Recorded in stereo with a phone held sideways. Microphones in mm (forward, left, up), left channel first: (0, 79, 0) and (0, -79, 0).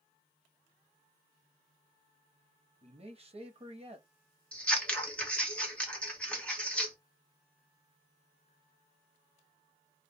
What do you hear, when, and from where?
2.8 s a man speaking: 35° right (ahead or behind), 1.1 m
4.5 s scissors: 5° left (ahead or behind), 1.1 m